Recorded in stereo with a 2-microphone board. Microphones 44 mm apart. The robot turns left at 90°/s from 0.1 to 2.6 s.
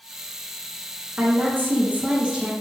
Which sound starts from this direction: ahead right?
A woman speaking, at 1.2 s.